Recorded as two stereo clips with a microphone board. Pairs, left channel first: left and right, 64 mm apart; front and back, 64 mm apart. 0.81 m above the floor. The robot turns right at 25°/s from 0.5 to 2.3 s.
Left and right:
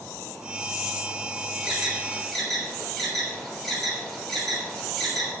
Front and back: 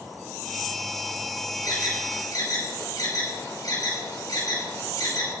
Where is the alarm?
15° right, 6 m; by 5.3 s straight ahead, 6 m.